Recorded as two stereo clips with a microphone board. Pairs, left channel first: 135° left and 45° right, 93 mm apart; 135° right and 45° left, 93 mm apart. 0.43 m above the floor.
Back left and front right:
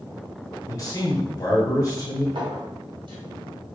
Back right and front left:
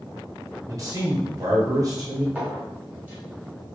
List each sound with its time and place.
0.7 s a man speaking: 90° left, 1.8 m
2.4 s a clink: 25° right, 1.8 m